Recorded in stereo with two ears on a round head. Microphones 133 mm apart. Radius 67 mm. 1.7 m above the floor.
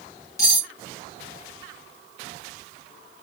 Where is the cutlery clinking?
20° left (ahead or behind), 1.0 m.